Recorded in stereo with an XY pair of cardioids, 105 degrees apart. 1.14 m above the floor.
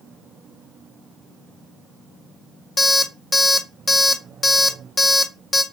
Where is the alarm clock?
25° left, 0.6 m.